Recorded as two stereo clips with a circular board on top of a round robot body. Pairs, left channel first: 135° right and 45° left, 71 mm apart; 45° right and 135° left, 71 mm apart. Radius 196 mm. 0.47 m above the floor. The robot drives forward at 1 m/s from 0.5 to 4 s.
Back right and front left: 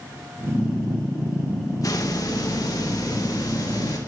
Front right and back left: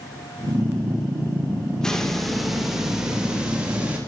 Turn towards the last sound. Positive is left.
turn(degrees=-150)